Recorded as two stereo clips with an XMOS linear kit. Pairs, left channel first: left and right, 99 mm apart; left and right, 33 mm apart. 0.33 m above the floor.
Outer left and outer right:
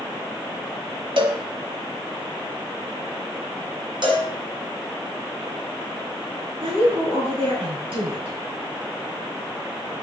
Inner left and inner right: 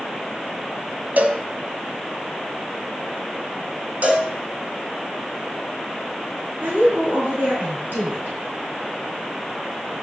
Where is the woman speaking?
70° right (ahead or behind), 5 m.